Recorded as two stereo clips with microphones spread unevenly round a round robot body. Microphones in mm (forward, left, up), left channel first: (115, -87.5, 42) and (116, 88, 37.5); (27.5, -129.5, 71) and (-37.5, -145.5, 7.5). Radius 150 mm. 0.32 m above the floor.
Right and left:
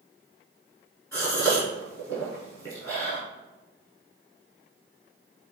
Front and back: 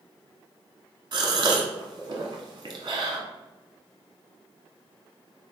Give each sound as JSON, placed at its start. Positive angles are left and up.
{"t": 1.1, "sound": "a gasp", "azimuth_deg": -170, "distance_m": 0.7}